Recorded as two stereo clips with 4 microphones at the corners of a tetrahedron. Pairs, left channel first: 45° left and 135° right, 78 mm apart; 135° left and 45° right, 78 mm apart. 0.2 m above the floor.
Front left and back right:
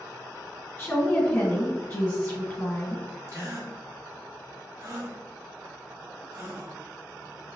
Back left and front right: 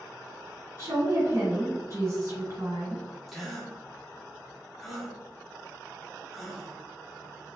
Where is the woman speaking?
10° right, 1.9 m.